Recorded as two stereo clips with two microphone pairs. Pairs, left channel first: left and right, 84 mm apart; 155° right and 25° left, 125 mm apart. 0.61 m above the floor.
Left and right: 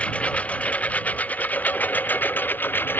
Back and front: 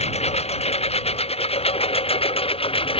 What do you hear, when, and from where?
0.0 s a lawn mower: 165° left; by 3.0 s 160° left